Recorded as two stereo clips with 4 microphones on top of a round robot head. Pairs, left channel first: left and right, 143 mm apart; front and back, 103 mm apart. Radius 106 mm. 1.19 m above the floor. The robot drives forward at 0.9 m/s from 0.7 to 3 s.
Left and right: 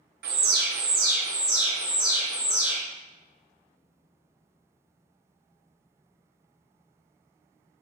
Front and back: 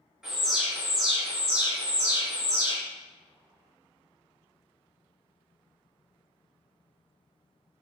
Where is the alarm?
95° right, 0.6 m; by 2.8 s 165° right, 2.0 m.